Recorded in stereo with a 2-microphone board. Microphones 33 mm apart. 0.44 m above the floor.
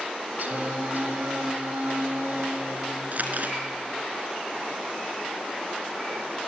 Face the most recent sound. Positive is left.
turn(degrees=-55)  # may be behind; listen again after turning